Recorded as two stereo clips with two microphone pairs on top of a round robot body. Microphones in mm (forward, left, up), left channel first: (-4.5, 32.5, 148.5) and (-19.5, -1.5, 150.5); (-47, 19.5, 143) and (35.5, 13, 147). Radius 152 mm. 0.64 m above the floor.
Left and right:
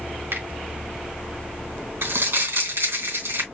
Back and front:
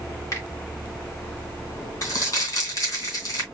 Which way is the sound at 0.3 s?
125° right.